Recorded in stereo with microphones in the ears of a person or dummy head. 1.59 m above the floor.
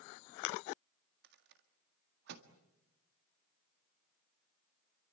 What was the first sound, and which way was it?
A rattle, 65° right (ahead or behind).